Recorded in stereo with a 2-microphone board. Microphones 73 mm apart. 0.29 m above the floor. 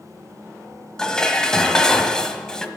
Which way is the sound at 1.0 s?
10° left (ahead or behind).